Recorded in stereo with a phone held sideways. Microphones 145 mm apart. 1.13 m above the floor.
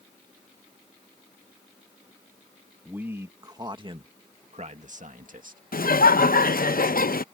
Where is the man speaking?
10° right (ahead or behind); by 5.6 s 70° right (ahead or behind).